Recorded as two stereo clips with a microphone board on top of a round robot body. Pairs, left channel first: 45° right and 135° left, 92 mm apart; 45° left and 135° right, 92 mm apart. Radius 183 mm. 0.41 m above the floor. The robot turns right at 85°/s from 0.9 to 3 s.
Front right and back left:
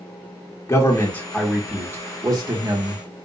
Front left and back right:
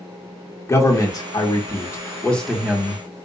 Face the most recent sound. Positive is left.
turn(degrees=180)